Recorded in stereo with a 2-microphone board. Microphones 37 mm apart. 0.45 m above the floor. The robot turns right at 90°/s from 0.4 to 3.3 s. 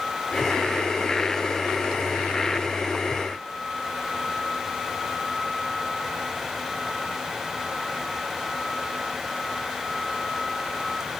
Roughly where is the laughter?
No laughter in this recording.